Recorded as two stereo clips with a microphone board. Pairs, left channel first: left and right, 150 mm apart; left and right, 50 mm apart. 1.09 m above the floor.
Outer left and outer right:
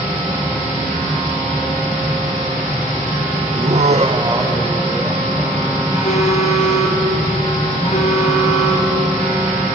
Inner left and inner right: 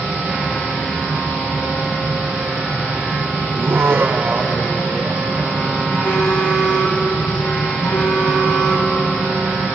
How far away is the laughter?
About 1.0 m.